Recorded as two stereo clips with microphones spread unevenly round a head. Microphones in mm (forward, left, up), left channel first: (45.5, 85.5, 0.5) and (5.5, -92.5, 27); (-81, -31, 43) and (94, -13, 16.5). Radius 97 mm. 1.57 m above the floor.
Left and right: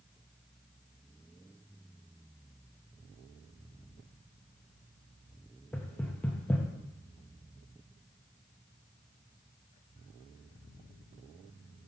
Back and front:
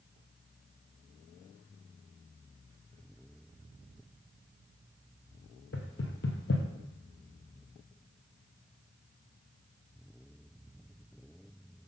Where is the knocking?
165° left, 0.7 m.